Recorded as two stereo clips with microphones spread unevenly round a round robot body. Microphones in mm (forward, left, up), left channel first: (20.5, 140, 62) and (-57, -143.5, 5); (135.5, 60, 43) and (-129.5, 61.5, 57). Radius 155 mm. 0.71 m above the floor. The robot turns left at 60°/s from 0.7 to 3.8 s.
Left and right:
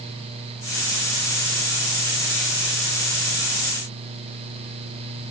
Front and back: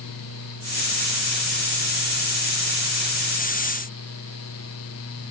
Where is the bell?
No bell in this recording.